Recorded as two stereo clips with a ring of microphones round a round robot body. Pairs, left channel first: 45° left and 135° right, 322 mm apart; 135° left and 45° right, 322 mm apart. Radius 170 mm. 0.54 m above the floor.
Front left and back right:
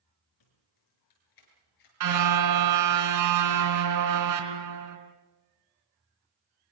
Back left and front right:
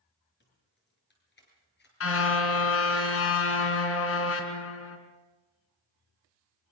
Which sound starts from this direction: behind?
A car horn, at 2.0 s.